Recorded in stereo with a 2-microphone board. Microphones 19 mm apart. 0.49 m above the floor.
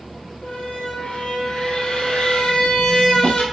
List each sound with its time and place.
0.4 s a squeak: 75° left (ahead or behind), 1.8 m